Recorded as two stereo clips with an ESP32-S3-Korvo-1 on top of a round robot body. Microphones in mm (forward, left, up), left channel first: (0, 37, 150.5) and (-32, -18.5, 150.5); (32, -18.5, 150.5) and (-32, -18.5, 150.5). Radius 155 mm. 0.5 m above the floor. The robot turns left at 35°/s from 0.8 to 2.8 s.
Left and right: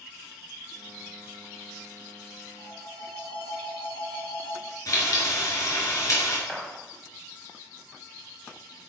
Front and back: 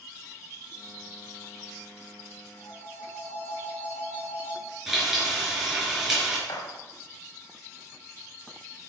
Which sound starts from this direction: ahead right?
A gunshot, at 6.5 s.